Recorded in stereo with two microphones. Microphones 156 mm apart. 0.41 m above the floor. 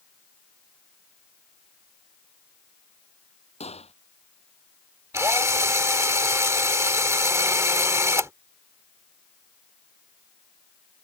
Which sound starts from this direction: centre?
A drill, at 5.1 s.